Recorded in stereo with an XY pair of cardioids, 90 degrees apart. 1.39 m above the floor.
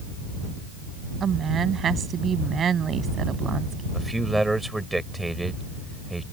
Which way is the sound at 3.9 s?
10° right.